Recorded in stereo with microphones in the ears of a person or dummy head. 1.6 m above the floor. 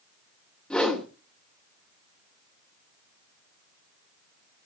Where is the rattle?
I don't hear a rattle.